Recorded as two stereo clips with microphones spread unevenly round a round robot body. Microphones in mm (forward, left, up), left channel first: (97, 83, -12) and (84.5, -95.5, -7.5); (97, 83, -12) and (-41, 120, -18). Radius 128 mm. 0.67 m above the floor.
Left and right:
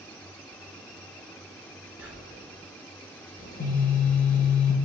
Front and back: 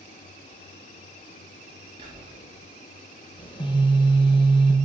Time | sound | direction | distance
2.0 | whispering | 170° right | 0.7 m
3.4 | a phone buzzing | 45° left | 0.9 m